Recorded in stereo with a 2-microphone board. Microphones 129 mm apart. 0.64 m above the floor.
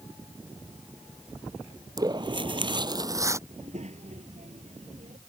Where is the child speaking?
60° right (ahead or behind).